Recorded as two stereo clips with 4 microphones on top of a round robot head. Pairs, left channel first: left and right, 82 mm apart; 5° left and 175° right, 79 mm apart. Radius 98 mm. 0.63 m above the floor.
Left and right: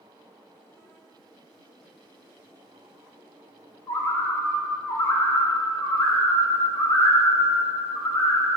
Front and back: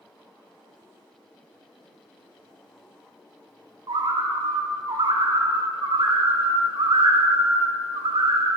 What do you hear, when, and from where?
3.9 s a bird: 150° left, 0.8 m